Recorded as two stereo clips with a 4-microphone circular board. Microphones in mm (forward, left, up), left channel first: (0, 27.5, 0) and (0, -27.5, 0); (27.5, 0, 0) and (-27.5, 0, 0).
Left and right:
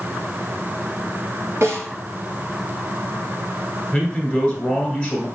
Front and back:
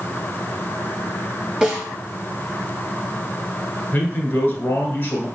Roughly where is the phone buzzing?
I don't hear a phone buzzing.